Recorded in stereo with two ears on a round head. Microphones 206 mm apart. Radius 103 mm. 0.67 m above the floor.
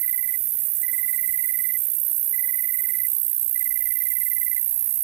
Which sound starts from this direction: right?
An insect, at 0.0 s.